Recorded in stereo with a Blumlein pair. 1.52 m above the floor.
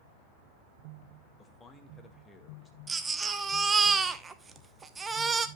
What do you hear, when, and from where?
1.4 s a man speaking: 15° left, 2 m
2.9 s a baby crying: 15° right, 0.9 m